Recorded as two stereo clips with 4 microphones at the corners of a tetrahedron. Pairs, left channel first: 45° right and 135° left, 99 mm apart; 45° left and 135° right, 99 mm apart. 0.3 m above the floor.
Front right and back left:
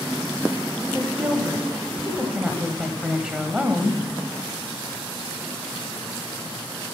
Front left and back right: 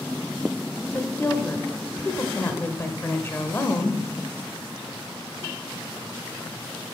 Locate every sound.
0.9 s a woman speaking: 65° left, 1.1 m